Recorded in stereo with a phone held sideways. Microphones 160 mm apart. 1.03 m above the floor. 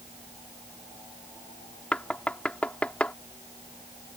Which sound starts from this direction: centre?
Knocking, at 1.9 s.